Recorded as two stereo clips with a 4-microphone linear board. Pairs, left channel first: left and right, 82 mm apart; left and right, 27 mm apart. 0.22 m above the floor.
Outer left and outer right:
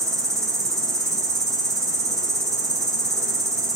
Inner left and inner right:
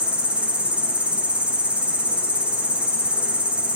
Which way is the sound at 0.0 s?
40° right (ahead or behind).